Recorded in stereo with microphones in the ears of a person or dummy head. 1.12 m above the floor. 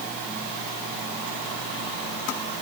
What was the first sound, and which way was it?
Only background noise.